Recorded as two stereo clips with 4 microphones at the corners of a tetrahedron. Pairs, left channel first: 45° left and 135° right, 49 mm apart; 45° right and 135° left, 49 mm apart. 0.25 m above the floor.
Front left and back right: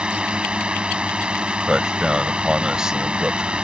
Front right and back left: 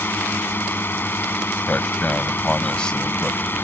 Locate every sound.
0.0 s a drone: 70° right
1.6 s a man speaking: 80° right